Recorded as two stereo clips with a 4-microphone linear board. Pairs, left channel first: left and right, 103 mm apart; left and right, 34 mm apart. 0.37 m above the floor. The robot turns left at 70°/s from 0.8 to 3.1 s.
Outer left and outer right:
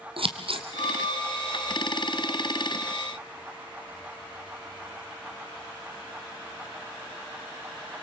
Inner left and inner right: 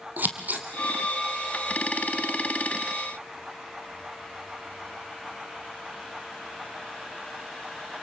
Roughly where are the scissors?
Right.